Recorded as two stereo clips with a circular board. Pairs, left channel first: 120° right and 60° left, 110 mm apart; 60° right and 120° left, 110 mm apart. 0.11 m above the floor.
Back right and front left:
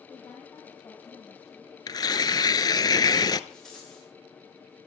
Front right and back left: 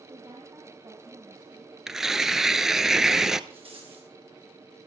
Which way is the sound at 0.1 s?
165° left.